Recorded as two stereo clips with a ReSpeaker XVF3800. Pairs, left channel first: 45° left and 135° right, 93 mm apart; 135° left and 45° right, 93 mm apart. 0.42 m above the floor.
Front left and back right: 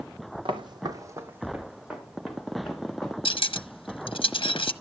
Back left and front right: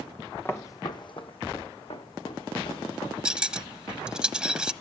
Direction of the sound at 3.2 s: 35° left.